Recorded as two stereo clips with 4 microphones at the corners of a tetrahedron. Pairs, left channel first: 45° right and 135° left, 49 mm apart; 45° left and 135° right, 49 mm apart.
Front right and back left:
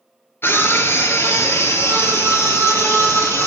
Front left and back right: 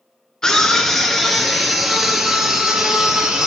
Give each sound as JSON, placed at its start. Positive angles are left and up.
{"t": 0.4, "sound": "a scream", "azimuth_deg": -30, "distance_m": 2.0}